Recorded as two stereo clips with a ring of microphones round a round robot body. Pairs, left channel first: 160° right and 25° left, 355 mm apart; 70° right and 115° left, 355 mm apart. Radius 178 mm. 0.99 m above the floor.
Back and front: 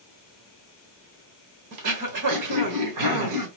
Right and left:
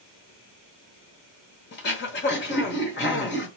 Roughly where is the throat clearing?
Ahead.